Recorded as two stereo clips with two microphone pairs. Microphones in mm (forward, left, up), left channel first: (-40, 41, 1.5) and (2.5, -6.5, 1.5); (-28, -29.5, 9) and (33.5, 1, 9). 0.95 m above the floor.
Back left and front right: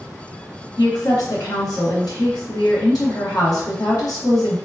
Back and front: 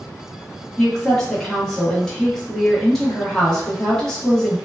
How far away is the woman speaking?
About 1.1 m.